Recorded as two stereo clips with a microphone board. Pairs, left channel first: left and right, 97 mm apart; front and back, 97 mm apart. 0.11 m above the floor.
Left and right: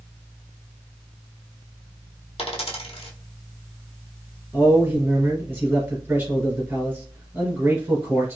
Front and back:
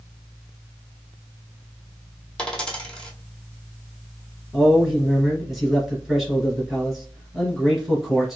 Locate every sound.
2.4 s a dropped coin: 80° left, 1.1 m
4.5 s a man speaking: 95° right, 1.6 m